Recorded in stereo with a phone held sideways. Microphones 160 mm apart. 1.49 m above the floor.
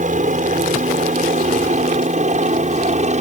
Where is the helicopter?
50° right (ahead or behind); by 3.2 s 45° right (ahead or behind).